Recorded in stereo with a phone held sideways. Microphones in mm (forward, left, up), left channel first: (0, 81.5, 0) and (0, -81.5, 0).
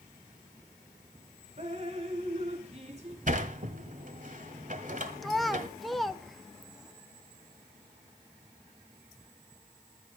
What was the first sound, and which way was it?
Dripping, 40° right (ahead or behind).